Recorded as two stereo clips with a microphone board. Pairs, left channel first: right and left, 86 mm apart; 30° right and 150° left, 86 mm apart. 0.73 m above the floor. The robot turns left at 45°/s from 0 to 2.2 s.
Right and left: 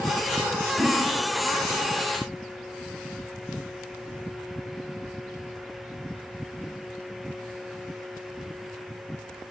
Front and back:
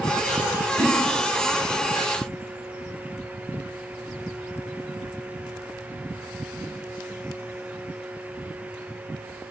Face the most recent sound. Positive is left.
turn(degrees=70)